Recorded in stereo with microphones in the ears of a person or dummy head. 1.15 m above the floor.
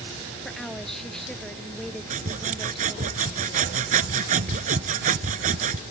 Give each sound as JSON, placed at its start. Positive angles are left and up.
{"t": 0.5, "sound": "a woman speaking", "side_deg": 5}
{"t": 2.1, "sound": "sawing", "side_deg": -40}